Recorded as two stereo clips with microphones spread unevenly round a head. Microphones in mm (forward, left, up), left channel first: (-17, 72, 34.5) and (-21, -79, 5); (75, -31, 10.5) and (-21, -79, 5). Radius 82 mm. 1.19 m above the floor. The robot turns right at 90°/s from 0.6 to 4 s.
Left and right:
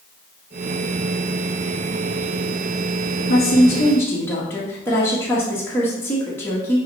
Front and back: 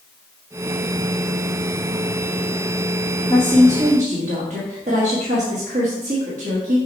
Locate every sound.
3.2 s a woman speaking: 90° left, 1.6 m; by 6.8 s 165° left, 1.6 m